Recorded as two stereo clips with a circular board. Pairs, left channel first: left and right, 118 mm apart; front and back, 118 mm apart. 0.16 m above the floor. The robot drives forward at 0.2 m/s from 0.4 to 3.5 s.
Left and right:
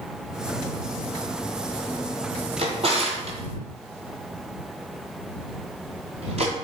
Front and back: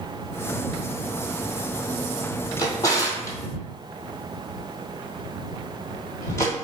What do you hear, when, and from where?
2.6 s a drawer: 60° right, 1.1 m; by 6.5 s 65° right, 1.1 m